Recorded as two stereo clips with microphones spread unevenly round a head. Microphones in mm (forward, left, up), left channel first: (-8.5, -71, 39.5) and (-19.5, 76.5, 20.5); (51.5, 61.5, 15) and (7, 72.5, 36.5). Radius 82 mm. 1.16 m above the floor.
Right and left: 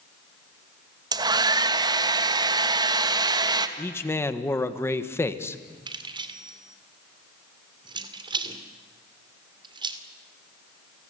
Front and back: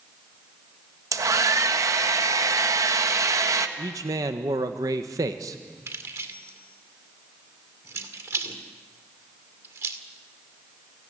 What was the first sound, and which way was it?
A hair dryer, 155° left.